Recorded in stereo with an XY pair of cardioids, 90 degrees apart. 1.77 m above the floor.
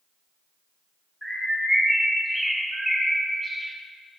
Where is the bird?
Straight ahead, 1.4 m.